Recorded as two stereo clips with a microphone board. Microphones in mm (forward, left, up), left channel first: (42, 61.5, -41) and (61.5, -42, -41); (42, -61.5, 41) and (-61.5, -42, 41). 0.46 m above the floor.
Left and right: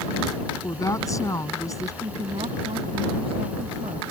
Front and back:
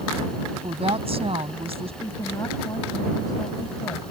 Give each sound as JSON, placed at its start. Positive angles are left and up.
{"t": 0.6, "sound": "a woman speaking", "azimuth_deg": 155}
{"t": 2.0, "sound": "a woman speaking", "azimuth_deg": -65}